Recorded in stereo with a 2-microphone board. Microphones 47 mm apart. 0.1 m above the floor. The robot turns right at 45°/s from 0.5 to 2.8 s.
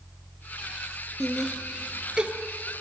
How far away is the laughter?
About 1.6 m.